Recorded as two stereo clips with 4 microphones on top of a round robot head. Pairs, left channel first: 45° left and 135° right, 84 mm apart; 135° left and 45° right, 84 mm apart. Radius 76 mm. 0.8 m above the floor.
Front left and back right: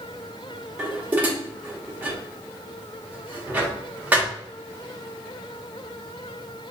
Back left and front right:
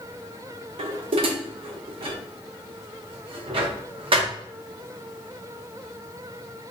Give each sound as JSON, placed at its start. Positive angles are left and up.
{"t": 0.8, "sound": "dishes clattering", "azimuth_deg": -60, "distance_m": 0.8}